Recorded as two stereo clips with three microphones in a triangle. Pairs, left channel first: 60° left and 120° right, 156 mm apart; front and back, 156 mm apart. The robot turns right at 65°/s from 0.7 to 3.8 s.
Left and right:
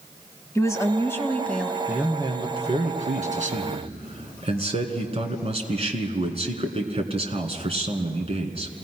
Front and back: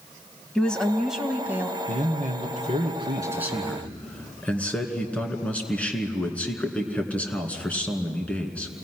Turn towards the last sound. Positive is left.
turn(degrees=-80)